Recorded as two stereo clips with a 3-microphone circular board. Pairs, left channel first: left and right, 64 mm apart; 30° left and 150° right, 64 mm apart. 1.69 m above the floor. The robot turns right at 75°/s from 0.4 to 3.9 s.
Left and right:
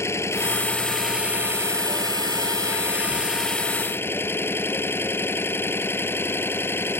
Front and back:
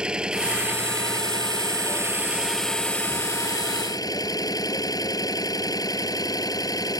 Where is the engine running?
135° left; by 7.0 s 40° left.